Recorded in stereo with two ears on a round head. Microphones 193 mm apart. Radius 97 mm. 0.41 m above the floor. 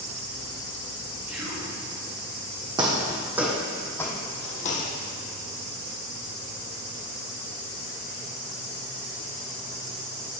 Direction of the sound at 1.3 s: 5° right (ahead or behind).